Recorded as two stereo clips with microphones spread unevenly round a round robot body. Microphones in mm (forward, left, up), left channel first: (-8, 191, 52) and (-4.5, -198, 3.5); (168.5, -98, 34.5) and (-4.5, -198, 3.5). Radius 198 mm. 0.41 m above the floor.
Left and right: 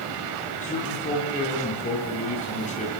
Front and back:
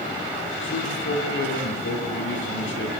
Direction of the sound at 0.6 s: 20° left.